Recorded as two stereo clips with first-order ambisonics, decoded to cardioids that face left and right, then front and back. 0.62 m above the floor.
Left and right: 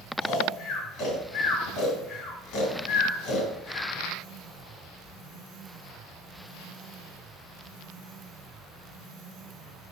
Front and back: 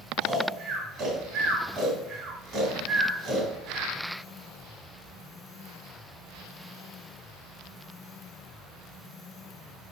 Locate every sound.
0.2 s snoring: 120° left, 2.5 m